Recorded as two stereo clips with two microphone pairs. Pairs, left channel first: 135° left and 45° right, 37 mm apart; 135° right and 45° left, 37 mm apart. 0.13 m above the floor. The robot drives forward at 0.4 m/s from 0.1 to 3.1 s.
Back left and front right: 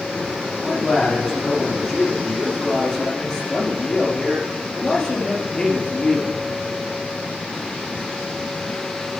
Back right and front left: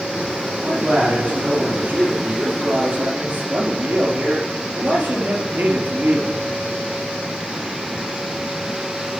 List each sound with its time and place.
0.6 s a man speaking: 60° left, 4 m; by 6.4 s 75° left, 3.5 m